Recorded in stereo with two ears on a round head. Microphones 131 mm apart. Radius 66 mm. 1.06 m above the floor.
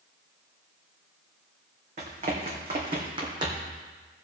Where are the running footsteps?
45° right (ahead or behind), 3 m; by 3.7 s 30° right (ahead or behind), 2.5 m.